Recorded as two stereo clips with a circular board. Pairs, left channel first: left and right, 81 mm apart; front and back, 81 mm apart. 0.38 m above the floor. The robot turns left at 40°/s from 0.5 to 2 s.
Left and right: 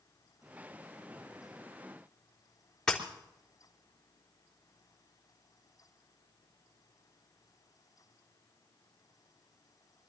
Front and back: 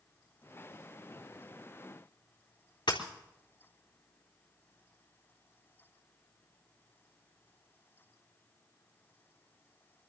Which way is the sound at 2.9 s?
10° left.